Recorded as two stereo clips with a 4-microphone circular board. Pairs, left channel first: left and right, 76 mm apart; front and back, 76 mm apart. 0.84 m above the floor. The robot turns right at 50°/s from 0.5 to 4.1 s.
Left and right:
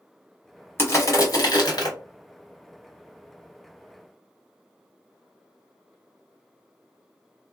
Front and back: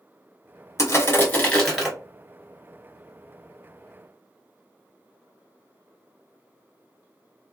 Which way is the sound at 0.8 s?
35° left.